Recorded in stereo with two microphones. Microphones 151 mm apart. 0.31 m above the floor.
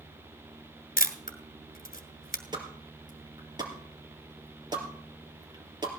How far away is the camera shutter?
About 1.3 m.